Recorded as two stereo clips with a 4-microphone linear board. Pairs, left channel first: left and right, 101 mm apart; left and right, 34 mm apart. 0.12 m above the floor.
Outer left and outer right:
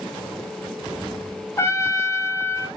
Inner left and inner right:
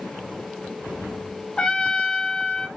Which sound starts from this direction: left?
A trumpet, at 1.6 s.